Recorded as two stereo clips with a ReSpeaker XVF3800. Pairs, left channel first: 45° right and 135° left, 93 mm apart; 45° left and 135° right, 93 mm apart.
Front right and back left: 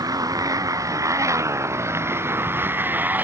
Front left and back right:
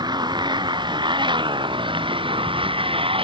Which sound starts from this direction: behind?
A motorcycle, at 0.0 s.